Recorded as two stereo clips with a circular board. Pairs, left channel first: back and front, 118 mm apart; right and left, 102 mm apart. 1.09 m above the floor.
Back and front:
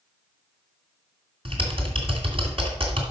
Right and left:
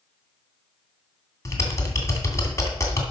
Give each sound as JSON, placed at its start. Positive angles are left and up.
{"t": 1.4, "sound": "typing on a keyboard", "azimuth_deg": -35, "distance_m": 2.5}